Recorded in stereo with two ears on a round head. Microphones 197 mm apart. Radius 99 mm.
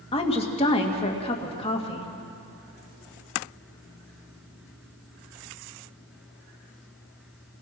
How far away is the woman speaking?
About 2.5 m.